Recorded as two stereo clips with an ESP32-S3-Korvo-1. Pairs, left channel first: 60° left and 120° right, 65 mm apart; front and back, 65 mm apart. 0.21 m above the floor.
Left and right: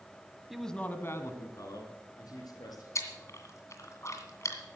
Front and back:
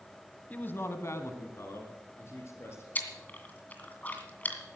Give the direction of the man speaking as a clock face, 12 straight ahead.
1 o'clock.